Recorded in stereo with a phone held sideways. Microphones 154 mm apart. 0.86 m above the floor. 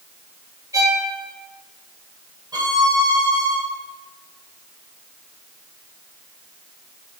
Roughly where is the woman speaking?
No woman speaking in this recording.